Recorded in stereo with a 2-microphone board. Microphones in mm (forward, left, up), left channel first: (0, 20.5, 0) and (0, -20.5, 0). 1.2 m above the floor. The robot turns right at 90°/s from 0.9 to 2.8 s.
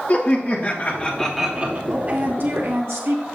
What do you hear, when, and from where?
0.1 s laughter: 140° left, 1.4 m; by 1.8 s 140° right, 1.4 m
1.9 s a woman speaking: 165° right, 1.4 m; by 3.2 s 85° right, 1.4 m